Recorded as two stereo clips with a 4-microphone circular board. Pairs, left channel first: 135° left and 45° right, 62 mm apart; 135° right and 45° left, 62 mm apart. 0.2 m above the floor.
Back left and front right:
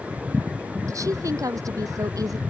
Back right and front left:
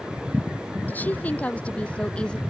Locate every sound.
0.9 s a woman speaking: 70° right; by 2.4 s 60° right